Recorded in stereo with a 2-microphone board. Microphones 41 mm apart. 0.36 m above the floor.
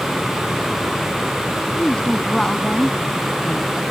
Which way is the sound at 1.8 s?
20° left (ahead or behind).